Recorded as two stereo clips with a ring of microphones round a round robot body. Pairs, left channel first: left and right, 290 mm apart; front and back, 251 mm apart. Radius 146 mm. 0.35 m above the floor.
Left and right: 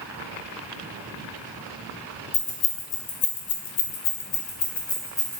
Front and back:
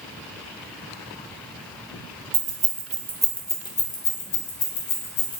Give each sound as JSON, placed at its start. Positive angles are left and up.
{"t": 2.3, "sound": "keys jangling", "azimuth_deg": 125, "distance_m": 1.0}